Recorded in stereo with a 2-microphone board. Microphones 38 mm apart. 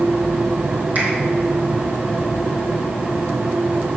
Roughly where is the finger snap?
Right.